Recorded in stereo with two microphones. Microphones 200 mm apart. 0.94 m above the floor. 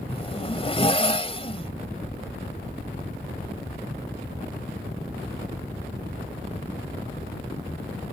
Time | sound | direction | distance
0.1 | a zipper | 30° left (ahead or behind) | ?